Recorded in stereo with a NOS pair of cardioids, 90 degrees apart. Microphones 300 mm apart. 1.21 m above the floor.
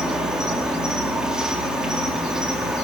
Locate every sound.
0.0 s an insect: straight ahead, 4.5 m